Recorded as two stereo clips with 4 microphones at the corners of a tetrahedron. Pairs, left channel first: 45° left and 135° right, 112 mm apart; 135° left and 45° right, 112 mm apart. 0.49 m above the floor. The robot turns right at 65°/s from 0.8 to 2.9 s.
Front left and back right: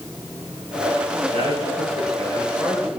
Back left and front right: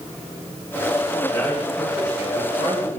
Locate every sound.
1.3 s a man speaking: 170° right, 9 m; by 3.0 s 65° right, 9 m